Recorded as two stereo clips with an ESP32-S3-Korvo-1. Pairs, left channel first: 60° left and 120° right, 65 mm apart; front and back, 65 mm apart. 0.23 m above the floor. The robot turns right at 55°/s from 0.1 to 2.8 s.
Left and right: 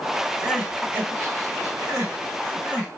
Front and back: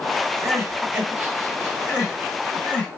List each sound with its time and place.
0.4 s crying: 170° left, 2 m; by 3.0 s 60° right, 2 m